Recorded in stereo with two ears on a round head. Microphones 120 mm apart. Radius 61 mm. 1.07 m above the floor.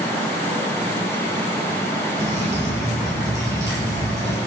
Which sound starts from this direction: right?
Dripping, at 2.2 s.